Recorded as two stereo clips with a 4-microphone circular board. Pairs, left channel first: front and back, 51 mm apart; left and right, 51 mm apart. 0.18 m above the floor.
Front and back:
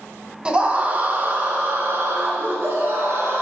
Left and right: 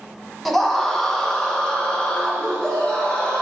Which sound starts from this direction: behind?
A scream, at 0.5 s.